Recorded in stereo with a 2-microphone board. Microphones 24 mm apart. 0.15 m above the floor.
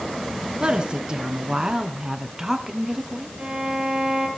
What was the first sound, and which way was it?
A woman speaking, 40° right (ahead or behind).